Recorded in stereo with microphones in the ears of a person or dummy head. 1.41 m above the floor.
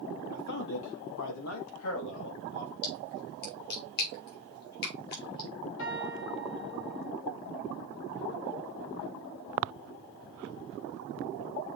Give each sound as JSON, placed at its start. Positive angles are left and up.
{"t": 0.3, "sound": "a man speaking", "side_deg": 50, "distance_m": 1.9}
{"t": 2.8, "sound": "a splash", "side_deg": 60, "distance_m": 3.5}
{"t": 5.8, "sound": "a piano", "side_deg": 75, "distance_m": 3.0}